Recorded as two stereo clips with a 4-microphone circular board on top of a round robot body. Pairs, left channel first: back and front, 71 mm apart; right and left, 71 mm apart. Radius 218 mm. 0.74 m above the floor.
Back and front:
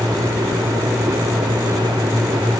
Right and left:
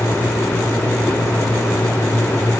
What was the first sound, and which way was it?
Only background noise.